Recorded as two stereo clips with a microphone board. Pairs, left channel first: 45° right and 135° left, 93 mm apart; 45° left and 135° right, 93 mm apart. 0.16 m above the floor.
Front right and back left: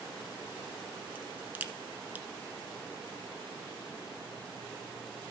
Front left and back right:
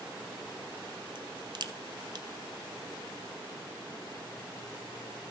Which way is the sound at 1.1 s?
155° right.